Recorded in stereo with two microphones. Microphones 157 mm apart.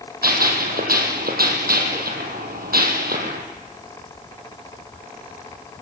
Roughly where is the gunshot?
Right.